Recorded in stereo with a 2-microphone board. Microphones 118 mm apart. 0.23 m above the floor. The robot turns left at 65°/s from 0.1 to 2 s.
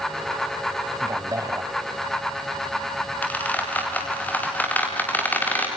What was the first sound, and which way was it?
A man speaking, 25° right (ahead or behind).